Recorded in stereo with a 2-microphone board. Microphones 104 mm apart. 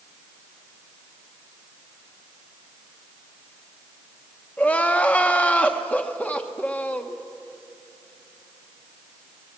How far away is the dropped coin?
No dropped coin in this recording.